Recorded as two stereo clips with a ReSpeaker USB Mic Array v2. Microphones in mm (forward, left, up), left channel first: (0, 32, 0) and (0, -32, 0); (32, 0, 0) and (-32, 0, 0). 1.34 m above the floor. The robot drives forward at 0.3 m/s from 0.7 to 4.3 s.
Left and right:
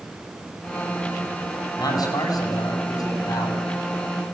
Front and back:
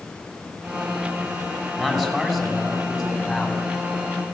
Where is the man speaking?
95° left, 9.5 m; by 3.6 s 100° left, 9.5 m.